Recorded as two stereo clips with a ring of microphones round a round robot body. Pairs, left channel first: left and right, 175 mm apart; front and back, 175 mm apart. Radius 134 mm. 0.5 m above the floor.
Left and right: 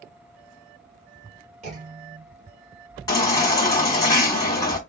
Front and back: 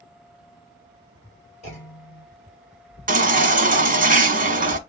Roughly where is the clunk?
Ahead right.